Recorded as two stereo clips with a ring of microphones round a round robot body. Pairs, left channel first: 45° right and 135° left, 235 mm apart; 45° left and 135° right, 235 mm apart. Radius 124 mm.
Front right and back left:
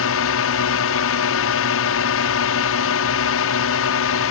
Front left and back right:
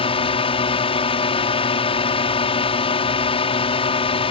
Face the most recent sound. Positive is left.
turn(degrees=-20)